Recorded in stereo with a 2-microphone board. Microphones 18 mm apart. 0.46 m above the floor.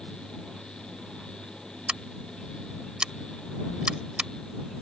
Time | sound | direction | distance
1.9 | scissors | 55° right (ahead or behind) | ?